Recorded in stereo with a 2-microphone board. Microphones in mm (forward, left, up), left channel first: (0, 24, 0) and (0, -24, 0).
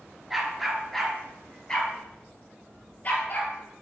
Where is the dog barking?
5° right (ahead or behind), 2 m; by 3.5 s 35° left (ahead or behind), 2.5 m.